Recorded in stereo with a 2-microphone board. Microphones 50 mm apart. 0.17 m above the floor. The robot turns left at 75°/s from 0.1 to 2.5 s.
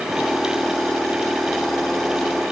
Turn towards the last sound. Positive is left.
No sound to turn to.